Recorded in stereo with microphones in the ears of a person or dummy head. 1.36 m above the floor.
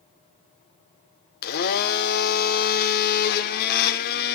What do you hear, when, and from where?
1.4 s a blender: 50° left (ahead or behind), 0.8 m